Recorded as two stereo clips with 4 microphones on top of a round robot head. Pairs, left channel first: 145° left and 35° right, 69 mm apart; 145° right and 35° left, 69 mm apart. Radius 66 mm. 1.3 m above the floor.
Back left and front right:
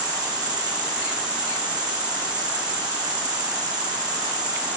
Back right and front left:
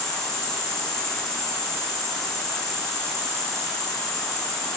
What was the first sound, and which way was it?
An insect, 60° right.